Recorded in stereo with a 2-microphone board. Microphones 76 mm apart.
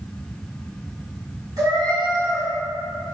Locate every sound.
1.6 s a cat meowing: 55° right (ahead or behind), 1.4 m